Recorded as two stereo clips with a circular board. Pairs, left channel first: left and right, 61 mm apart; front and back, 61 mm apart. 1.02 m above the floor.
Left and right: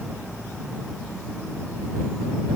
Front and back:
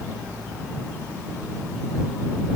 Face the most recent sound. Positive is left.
No sound to turn to.